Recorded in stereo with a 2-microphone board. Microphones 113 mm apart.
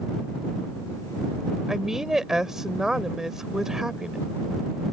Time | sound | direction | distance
1.7 | a woman speaking | 5° right (ahead or behind) | ?